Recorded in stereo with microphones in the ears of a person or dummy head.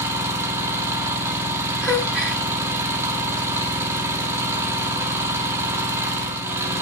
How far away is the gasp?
About 1.8 m.